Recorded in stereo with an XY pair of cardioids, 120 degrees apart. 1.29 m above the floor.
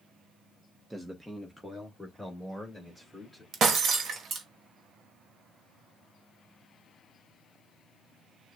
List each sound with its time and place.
0.9 s a man speaking: 5° right, 0.8 m; by 3.4 s 10° left, 2.5 m
3.5 s breaking glass: 45° right, 1.2 m